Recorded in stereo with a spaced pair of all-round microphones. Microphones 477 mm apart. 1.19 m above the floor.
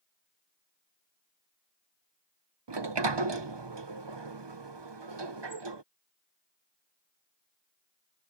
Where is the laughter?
I don't hear laughter.